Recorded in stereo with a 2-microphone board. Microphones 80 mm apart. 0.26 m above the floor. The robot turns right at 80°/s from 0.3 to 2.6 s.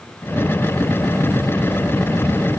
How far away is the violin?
I don't hear a violin.